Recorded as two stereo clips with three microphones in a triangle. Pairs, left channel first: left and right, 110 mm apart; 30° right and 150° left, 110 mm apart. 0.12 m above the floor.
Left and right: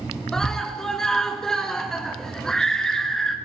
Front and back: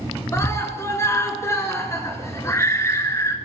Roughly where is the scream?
Ahead.